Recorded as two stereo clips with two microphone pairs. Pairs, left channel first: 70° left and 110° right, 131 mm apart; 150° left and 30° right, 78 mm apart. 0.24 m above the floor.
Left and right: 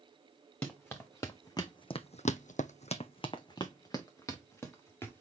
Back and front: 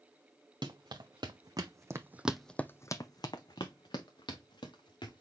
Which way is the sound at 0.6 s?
10° right.